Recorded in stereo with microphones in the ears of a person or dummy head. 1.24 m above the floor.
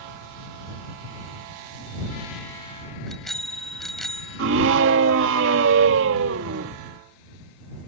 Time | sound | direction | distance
3.1 | a bicycle bell | centre (ahead or behind) | ?
4.4 | a scream | 70° right (ahead or behind) | ?